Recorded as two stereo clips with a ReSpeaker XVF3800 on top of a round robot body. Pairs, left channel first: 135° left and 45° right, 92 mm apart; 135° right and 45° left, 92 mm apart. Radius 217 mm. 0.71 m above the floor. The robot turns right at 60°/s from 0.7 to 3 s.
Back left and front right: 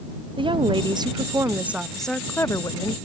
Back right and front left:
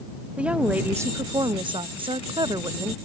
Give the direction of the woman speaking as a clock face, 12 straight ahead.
1 o'clock.